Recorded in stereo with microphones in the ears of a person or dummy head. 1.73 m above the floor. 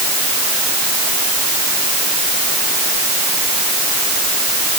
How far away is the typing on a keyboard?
I don't hear typing on a keyboard.